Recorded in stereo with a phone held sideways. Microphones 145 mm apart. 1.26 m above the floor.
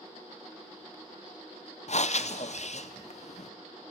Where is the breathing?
50° left (ahead or behind), 0.6 m.